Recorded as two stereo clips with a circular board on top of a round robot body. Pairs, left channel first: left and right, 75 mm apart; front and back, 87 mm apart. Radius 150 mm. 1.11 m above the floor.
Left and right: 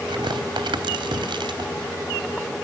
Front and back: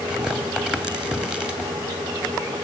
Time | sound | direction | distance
0.1 | tearing paper | 100° right | 2.5 m